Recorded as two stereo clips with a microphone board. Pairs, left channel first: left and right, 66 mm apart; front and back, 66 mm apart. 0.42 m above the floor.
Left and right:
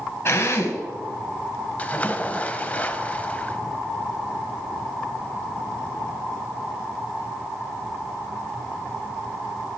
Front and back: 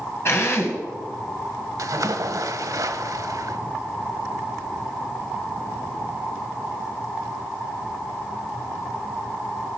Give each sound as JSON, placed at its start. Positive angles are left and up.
{"t": 0.2, "sound": "a drill", "azimuth_deg": 45, "distance_m": 2.0}
{"t": 1.8, "sound": "a splash", "azimuth_deg": 155, "distance_m": 0.7}